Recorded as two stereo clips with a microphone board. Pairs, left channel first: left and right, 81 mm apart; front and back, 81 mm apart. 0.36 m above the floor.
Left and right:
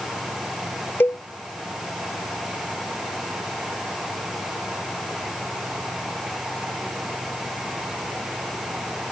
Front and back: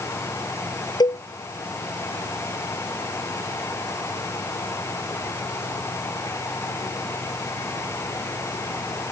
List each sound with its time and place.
1.0 s a cowbell: 30° left